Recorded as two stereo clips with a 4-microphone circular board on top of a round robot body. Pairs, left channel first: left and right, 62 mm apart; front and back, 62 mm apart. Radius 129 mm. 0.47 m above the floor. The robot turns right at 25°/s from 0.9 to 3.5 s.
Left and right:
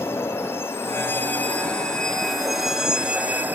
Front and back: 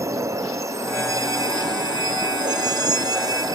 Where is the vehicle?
140° left; by 3.6 s 155° right.